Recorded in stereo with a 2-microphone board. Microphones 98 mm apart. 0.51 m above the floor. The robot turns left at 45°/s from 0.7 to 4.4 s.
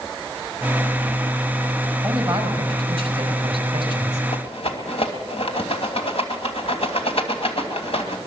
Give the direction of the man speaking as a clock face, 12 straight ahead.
1 o'clock.